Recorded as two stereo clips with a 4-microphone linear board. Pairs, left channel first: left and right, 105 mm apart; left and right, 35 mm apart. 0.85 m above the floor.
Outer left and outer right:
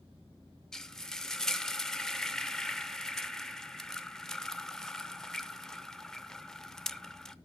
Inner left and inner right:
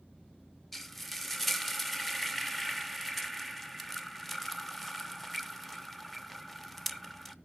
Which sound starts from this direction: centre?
Frying, at 0.7 s.